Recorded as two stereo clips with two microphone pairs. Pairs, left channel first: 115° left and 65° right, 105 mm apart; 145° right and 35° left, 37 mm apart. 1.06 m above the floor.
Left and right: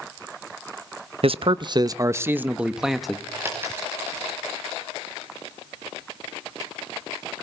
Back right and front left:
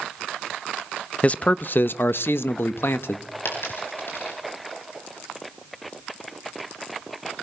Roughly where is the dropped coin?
Behind right.